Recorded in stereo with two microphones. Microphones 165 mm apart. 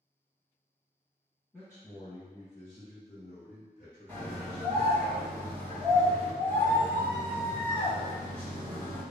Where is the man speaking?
15° left (ahead or behind), 1.2 m; by 5.0 s 50° left (ahead or behind), 1.9 m.